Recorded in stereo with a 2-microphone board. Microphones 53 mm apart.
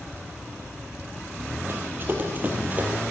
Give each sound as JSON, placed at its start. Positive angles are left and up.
{"t": 1.7, "sound": "running footsteps", "side_deg": -40, "distance_m": 3.0}